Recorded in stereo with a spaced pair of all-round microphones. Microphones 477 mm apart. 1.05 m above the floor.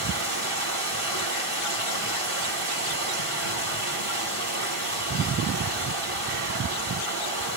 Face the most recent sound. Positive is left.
turn(degrees=-85)